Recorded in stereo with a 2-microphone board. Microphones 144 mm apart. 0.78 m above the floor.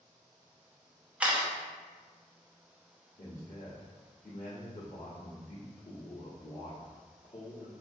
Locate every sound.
1.2 s a camera shutter: 10° right (ahead or behind), 0.8 m
3.2 s a man speaking: 65° left (ahead or behind), 1.2 m